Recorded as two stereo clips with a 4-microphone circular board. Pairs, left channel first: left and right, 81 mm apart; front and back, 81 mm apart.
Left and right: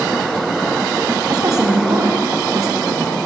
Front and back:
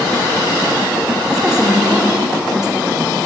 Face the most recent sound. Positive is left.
turn(degrees=-100)